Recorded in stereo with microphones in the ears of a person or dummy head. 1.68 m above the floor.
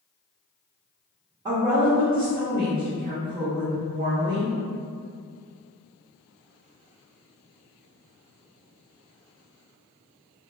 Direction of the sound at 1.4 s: 30° right (ahead or behind).